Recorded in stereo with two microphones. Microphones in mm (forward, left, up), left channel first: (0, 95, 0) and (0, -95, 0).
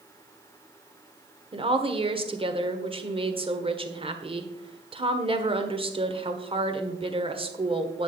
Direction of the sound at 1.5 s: 30° right (ahead or behind).